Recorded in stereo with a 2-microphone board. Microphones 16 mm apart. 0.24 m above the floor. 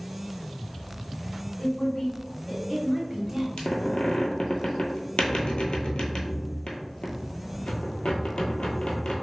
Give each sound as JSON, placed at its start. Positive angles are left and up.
{"t": 1.6, "sound": "a woman speaking", "side_deg": 50, "distance_m": 1.9}
{"t": 3.6, "sound": "a squeak", "side_deg": 80, "distance_m": 0.7}